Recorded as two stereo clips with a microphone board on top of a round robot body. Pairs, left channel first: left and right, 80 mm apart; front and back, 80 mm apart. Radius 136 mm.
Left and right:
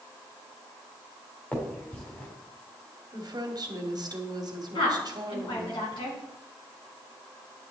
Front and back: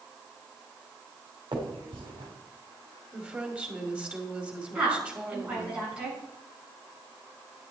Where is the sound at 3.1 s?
110° right, 2.5 m.